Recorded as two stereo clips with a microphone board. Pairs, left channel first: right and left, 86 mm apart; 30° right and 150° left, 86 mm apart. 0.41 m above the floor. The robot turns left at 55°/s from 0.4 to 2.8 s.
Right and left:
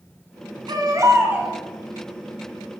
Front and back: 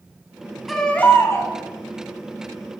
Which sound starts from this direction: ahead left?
A baby crying, at 0.7 s.